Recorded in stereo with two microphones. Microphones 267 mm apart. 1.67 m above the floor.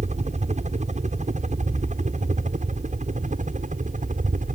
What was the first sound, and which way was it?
A helicopter, 25° right (ahead or behind).